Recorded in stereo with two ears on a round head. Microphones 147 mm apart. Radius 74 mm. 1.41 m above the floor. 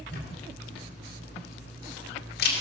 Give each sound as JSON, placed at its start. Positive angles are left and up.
{"t": 0.1, "sound": "a camera shutter", "side_deg": 60, "distance_m": 2.5}